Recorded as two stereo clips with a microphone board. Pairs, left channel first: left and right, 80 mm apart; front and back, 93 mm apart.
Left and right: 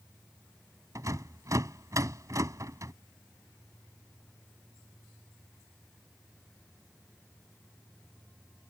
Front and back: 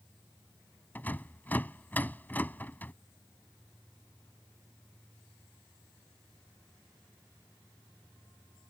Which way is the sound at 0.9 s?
65° right.